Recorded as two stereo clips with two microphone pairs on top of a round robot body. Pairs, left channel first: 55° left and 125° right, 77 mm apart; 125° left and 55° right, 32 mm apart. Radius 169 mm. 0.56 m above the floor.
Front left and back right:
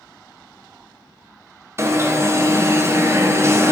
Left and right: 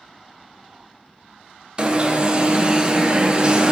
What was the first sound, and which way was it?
An alarm, 100° right.